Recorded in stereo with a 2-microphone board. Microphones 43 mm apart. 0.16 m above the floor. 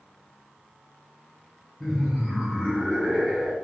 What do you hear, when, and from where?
1.8 s laughter: 5° left (ahead or behind), 1.6 m; by 3.5 s 25° right (ahead or behind), 1.6 m